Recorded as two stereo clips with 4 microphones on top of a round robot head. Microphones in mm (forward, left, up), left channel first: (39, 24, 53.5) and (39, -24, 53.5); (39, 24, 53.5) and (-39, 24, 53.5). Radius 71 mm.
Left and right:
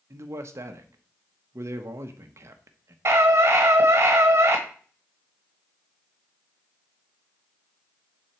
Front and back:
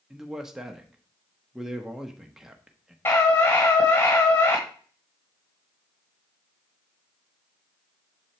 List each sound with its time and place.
0.1 s a man speaking: 95° right, 0.7 m
3.0 s a scream: 55° right, 1.3 m